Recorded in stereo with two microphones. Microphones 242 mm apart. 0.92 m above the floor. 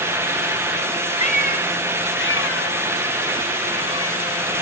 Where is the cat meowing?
30° left (ahead or behind), 1.5 m; by 4.2 s 70° left (ahead or behind), 2 m.